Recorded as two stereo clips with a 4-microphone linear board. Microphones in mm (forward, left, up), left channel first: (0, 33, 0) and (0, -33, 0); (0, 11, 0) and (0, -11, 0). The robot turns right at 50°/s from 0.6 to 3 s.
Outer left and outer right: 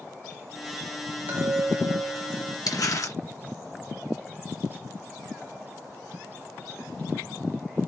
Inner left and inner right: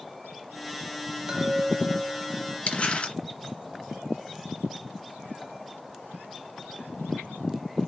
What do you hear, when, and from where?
1.3 s a chime: 55° right, 1.1 m; by 2.6 s 5° left, 1.1 m
2.7 s crumpling: 65° left (ahead or behind), 2.5 m; by 3.2 s 60° left (ahead or behind), 2.5 m